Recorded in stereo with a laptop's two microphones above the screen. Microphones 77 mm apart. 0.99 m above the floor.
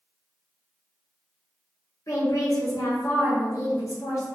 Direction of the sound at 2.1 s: 45° left (ahead or behind).